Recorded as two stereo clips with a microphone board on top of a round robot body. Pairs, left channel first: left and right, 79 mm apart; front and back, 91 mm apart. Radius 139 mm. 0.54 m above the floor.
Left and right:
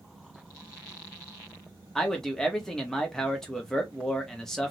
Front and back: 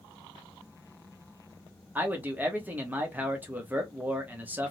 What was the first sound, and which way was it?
A man speaking, 165° left.